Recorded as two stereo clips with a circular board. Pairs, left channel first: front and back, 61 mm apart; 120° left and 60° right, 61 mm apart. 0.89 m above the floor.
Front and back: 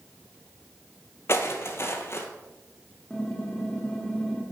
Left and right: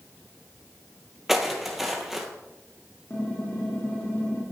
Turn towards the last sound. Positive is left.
turn(degrees=75)